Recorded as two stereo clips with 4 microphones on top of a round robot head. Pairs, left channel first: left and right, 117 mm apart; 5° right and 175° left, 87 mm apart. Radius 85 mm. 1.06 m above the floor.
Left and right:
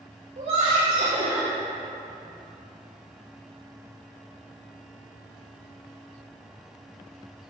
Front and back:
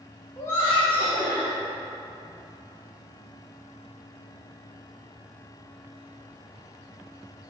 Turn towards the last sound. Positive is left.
turn(degrees=-65)